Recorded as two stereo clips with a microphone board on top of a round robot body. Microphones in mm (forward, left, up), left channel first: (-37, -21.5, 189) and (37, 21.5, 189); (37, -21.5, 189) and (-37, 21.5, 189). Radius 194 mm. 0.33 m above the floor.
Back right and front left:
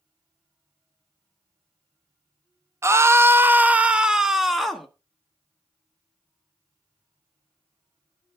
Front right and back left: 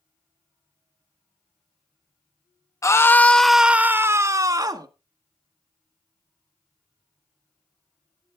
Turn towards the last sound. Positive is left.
turn(degrees=120)